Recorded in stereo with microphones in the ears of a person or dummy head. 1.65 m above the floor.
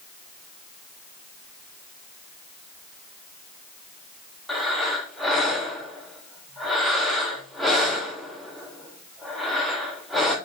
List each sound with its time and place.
4.5 s breathing: centre (ahead or behind), 0.8 m